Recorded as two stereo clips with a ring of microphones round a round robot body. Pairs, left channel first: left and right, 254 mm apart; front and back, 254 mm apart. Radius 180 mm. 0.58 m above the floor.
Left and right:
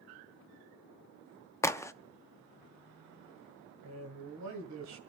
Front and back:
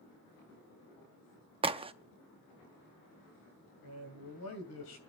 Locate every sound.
1.6 s a crack: 155° left, 0.7 m
3.8 s a man speaking: 50° right, 2.5 m